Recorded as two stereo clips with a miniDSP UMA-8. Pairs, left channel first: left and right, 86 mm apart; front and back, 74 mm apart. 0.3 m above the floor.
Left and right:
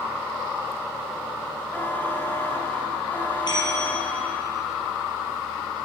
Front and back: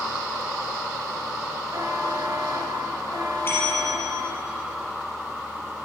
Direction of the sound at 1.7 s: 155° left.